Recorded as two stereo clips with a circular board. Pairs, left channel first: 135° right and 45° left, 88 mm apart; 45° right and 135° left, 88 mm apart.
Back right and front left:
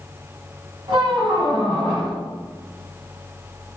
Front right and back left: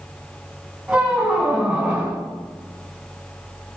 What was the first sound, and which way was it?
A squeak, 60° left.